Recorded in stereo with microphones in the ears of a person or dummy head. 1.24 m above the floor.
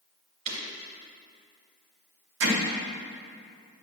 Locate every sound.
0.5 s breaking glass: 45° right (ahead or behind), 2.5 m
2.4 s hammering: 70° right (ahead or behind), 2 m